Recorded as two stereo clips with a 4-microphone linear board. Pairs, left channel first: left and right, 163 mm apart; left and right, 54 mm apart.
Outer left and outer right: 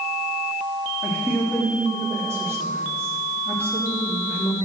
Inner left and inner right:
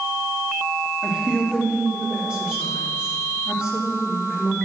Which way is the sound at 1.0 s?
15° right (ahead or behind).